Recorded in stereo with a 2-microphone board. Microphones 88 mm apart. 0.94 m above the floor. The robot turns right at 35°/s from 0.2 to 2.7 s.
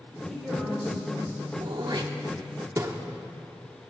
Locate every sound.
0.3 s a woman speaking: 175° left, 3.5 m; by 1.4 s 145° right, 3.5 m
1.6 s throat clearing: 65° right (ahead or behind), 0.8 m; by 2.9 s 35° right (ahead or behind), 0.8 m